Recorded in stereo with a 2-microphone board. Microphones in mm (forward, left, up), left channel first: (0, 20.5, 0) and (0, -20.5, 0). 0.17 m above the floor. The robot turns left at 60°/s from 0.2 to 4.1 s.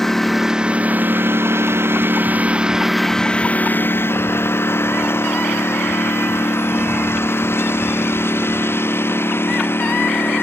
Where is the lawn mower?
10° left (ahead or behind); by 10.4 s 70° left (ahead or behind).